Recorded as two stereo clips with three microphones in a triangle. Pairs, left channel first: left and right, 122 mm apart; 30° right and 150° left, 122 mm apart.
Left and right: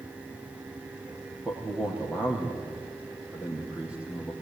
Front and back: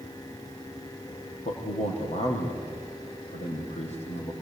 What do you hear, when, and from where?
1.4 s a man speaking: 10° right, 5.5 m